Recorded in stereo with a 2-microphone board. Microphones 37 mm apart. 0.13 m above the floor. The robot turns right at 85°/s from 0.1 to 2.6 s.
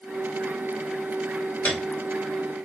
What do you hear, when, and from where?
1.6 s a piano: 45° left (ahead or behind), 1.1 m; by 1.9 s 50° left (ahead or behind), 1.1 m